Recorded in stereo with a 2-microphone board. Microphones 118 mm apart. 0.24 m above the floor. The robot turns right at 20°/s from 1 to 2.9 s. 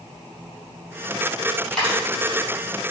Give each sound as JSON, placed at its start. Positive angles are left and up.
{"t": 1.7, "sound": "a dropped coin", "side_deg": 5, "distance_m": 1.6}